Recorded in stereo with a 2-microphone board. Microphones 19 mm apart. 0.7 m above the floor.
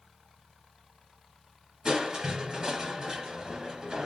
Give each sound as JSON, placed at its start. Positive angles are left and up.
{"t": 1.9, "sound": "crushing", "side_deg": -40, "distance_m": 1.9}